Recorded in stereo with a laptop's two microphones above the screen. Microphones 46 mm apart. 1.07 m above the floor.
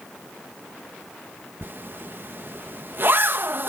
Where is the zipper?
50° right (ahead or behind).